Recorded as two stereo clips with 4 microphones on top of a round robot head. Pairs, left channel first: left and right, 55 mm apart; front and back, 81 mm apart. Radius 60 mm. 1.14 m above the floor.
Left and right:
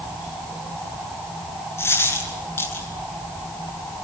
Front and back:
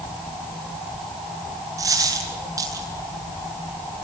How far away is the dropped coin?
About 8.5 m.